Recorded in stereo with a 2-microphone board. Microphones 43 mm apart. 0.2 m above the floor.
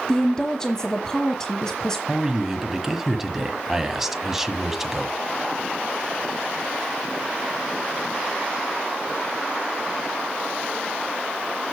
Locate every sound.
0.1 s a woman speaking: 15° left (ahead or behind), 1.1 m
2.1 s a man speaking: 10° right (ahead or behind), 1.2 m